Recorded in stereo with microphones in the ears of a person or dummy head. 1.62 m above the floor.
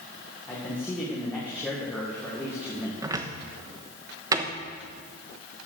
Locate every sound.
0.5 s a man speaking: 10° left (ahead or behind), 2.0 m
3.0 s a cupboard door: 20° right (ahead or behind), 1.1 m